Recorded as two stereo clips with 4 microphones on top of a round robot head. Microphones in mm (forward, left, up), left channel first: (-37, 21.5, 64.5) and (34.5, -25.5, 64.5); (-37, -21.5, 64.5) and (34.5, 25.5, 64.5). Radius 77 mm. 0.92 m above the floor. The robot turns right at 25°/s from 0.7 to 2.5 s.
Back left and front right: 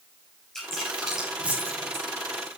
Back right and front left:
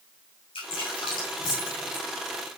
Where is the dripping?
130° right, 7 m; by 2.6 s 85° right, 7 m.